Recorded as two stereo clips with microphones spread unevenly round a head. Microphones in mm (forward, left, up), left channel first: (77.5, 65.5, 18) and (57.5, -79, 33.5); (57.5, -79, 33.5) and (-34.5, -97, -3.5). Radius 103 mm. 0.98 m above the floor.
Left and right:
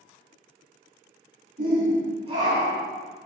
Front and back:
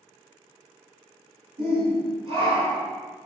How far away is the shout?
About 1.9 m.